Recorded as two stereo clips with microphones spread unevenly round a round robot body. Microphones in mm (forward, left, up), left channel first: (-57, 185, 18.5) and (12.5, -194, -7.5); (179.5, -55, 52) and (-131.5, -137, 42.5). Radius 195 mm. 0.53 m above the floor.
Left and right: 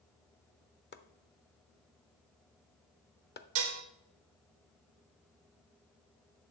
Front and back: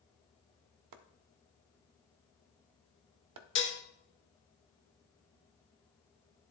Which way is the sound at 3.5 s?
40° right.